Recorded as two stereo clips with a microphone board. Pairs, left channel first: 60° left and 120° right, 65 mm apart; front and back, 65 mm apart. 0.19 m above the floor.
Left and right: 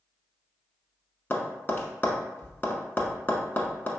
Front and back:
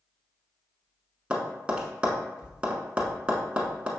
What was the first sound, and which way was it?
Tapping, 110° left.